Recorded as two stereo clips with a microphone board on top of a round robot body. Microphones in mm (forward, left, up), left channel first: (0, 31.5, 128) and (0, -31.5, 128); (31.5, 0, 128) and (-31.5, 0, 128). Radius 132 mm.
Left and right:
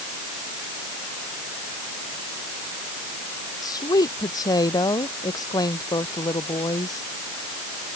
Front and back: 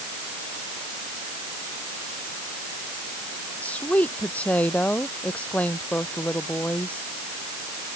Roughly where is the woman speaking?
Left.